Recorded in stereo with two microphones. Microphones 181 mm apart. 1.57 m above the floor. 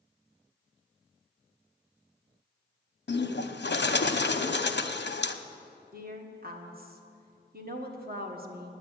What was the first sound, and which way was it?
A bird, 75° left (ahead or behind).